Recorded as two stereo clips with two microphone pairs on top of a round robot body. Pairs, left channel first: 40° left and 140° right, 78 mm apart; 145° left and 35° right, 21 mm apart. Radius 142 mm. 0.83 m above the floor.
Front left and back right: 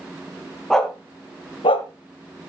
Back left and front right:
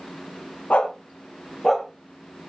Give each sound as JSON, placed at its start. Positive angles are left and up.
{"t": 0.7, "sound": "a dog barking", "azimuth_deg": 125, "distance_m": 1.8}